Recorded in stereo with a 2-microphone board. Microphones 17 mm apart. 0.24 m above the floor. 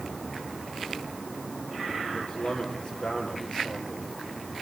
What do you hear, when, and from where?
2.1 s a man speaking: 75° left (ahead or behind), 6 m